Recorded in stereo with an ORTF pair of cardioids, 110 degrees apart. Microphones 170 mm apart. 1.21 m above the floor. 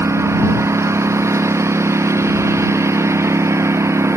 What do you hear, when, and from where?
0.0 s a lawn mower: 15° right